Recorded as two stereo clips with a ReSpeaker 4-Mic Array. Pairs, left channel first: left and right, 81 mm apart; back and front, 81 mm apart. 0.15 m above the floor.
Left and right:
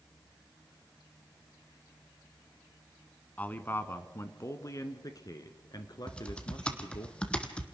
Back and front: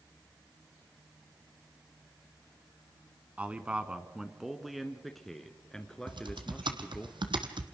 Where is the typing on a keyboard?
15° left, 1.4 m.